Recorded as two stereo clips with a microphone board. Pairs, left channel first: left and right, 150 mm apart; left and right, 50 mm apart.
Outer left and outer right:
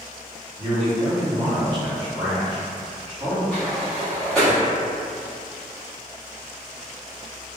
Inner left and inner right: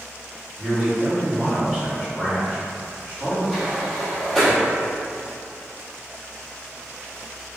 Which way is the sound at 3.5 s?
5° left (ahead or behind).